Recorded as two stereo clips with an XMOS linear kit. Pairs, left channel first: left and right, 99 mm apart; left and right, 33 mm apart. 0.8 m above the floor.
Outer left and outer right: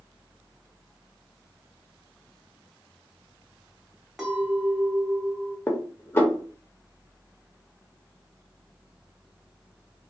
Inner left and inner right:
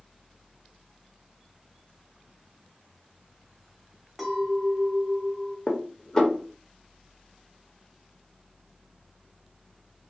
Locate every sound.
4.2 s a clink: centre (ahead or behind), 0.9 m
5.7 s dishes clattering: 20° left (ahead or behind), 0.7 m